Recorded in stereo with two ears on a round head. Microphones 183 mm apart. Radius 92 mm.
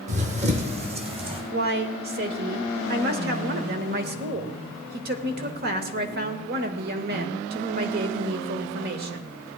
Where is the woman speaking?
50° right (ahead or behind), 1.2 m.